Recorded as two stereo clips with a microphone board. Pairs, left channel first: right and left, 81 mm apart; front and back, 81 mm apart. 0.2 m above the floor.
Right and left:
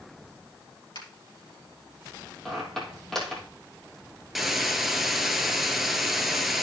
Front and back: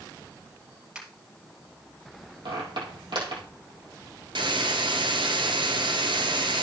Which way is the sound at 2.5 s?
175° right.